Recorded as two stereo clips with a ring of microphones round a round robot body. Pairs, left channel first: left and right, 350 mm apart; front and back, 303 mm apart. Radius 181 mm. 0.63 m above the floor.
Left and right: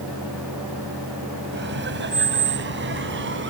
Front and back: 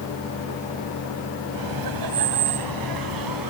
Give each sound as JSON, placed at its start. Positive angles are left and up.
{"t": 1.5, "sound": "laughter", "azimuth_deg": -150}